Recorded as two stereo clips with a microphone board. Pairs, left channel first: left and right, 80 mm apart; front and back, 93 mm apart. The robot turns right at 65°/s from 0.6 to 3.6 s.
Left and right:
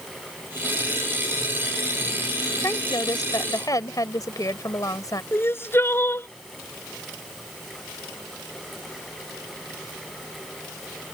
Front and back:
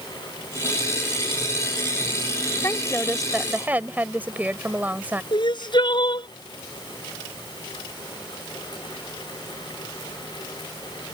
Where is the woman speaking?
50° left; by 5.2 s 115° left.